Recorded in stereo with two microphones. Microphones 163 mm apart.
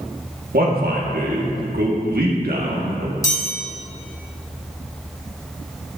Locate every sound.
0.5 s a man speaking: 70° right (ahead or behind), 1.5 m
3.2 s a chime: 20° left (ahead or behind), 2.5 m